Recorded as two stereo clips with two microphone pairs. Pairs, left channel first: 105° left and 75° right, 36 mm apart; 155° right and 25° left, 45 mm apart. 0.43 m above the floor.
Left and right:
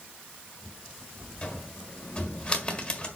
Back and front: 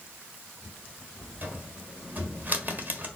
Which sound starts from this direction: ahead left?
A cupboard door, at 1.4 s.